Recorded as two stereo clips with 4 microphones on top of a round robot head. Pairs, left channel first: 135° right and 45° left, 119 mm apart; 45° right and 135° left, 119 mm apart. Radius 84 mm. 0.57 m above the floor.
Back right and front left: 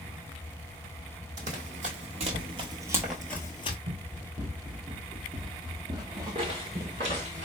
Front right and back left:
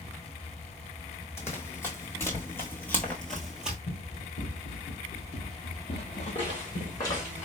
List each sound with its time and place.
1.4 s running footsteps: 20° left, 1.2 m; by 3.8 s 150° right, 0.6 m
3.9 s running footsteps: 5° right, 2 m; by 7.2 s 25° right, 0.7 m
6.3 s footsteps: 5° left, 2.5 m; by 7.5 s 20° left, 1.5 m